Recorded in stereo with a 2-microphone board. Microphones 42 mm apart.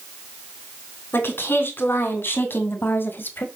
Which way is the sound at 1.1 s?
55° left (ahead or behind).